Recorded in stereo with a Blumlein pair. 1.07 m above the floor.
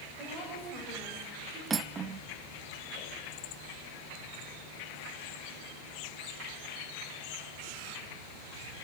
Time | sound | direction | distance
0.2 | a woman speaking | 35° right | 5.5 m
1.7 | cutlery clinking | 15° right | 0.9 m